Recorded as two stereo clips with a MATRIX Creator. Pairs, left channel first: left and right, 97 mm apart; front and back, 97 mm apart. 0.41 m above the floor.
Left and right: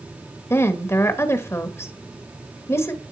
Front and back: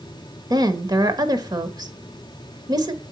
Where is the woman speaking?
145° left, 1.2 m.